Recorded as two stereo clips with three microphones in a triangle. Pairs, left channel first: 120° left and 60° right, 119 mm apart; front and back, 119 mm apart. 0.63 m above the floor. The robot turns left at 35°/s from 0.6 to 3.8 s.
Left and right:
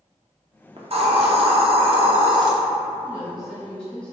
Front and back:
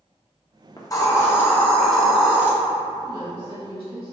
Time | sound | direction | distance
0.8 | a hiss | 45° right | 0.6 m
3.0 | a woman speaking | 130° right | 1.4 m